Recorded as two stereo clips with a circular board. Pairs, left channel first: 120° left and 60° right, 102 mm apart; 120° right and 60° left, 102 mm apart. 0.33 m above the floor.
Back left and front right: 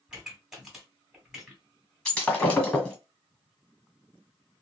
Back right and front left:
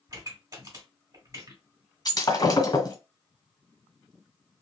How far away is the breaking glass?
About 1.4 m.